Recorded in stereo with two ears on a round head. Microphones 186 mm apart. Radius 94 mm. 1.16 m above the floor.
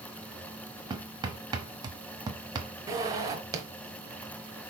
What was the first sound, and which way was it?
Hammering, 20° right (ahead or behind).